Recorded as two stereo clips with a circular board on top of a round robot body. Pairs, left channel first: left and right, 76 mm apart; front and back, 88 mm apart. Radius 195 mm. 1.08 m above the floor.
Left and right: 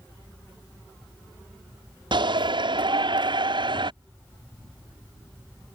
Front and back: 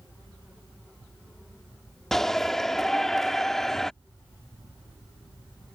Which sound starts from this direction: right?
A shout, at 2.1 s.